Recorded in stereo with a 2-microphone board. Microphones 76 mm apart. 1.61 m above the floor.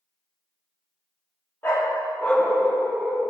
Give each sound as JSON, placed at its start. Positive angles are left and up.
{"t": 1.6, "sound": "a dog barking", "side_deg": 25, "distance_m": 1.5}